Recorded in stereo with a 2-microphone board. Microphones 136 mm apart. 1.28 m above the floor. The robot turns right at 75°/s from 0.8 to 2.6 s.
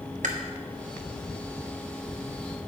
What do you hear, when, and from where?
0.2 s chewing: 65° right (ahead or behind), 1.1 m